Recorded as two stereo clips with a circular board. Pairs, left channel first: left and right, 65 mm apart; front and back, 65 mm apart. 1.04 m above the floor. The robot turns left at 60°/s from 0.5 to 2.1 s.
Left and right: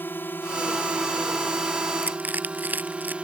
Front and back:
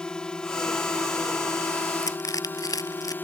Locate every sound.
0.0 s a drone: 65° left; by 3.2 s 30° right
2.0 s crushing: 20° right; by 3.1 s 25° right